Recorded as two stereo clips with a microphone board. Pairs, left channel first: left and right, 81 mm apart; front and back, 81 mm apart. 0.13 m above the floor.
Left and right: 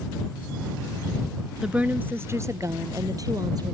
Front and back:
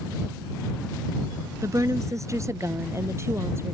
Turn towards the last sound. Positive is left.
turn(degrees=-125)